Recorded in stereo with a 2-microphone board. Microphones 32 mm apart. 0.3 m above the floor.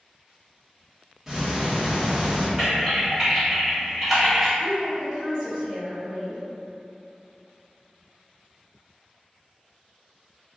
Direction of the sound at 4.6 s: 25° right (ahead or behind).